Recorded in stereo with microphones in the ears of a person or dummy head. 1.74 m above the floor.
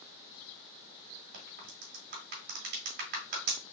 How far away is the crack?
About 1.7 m.